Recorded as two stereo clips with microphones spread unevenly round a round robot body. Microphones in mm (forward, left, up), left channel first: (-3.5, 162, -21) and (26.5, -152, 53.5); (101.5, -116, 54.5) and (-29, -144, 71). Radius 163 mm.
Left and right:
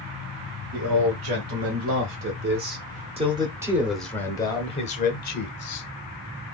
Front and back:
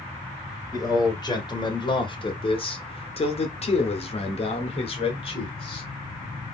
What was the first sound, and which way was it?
A man speaking, 45° right.